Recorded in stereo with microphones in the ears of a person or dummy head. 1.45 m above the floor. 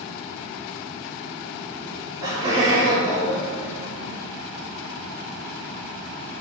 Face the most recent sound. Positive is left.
turn(degrees=-55)  # may be behind; listen again after turning